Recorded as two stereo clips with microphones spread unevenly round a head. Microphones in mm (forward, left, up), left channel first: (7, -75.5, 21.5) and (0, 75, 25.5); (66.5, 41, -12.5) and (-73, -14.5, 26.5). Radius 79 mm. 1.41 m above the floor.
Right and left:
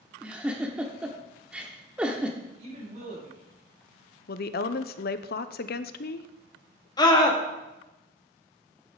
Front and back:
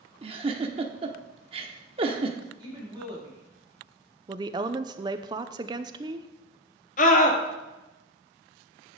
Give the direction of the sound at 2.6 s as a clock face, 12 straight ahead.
7 o'clock.